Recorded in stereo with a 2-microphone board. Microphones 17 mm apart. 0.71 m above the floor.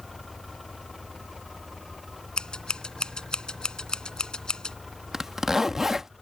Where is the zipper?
30° right (ahead or behind).